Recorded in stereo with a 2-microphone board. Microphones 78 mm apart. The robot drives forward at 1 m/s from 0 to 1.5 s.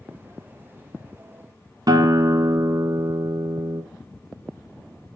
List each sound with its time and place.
1.9 s a guitar: 55° right (ahead or behind), 0.8 m